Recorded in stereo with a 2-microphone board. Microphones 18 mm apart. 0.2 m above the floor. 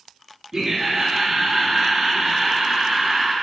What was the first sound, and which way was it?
Laughter, 35° right (ahead or behind).